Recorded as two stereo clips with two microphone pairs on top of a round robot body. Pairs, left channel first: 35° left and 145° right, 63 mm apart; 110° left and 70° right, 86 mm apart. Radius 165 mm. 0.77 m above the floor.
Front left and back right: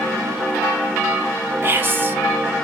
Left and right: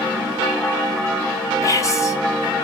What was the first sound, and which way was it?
Whispering, 155° left.